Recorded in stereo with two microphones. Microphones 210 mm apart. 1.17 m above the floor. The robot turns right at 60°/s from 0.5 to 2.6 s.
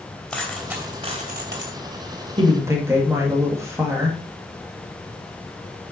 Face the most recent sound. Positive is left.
turn(degrees=-15)  # may be behind; listen again after turning